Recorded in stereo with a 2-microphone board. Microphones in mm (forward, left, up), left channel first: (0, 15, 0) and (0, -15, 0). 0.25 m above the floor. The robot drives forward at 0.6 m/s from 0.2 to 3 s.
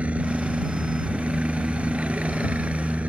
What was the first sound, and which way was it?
A helicopter, 50° right (ahead or behind).